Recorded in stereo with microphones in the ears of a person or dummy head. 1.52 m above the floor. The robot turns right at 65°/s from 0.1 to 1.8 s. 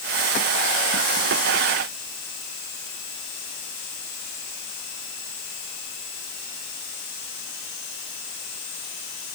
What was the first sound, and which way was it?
Only background noise.